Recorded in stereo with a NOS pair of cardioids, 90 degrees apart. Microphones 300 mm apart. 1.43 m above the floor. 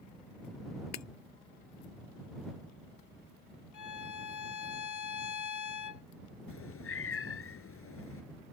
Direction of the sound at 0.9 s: 55° left.